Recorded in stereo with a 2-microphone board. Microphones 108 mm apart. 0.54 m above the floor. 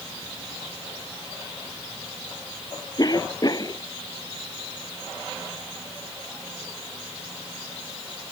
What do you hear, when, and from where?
3.0 s a cough: 35° left (ahead or behind)